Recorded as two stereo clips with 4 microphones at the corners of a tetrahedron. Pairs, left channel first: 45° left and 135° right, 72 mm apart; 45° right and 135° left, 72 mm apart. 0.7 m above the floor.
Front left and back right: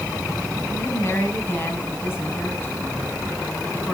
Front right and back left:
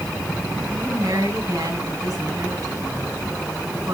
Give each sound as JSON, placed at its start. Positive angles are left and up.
{"t": 0.7, "sound": "a woman speaking", "azimuth_deg": 105, "distance_m": 5.5}